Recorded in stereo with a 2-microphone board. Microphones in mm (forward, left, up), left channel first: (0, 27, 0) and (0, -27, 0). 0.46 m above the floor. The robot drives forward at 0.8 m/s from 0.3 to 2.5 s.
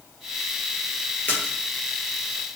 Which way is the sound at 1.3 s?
35° left (ahead or behind).